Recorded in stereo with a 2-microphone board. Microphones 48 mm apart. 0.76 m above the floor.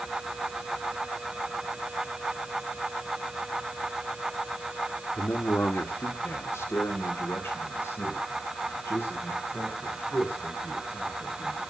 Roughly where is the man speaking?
Left.